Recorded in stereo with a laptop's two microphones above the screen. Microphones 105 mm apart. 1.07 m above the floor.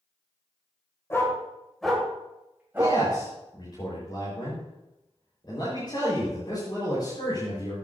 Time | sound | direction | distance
1.1 | a dog barking | 25° left (ahead or behind) | 2 m
2.8 | a man speaking | 45° left (ahead or behind) | 4.5 m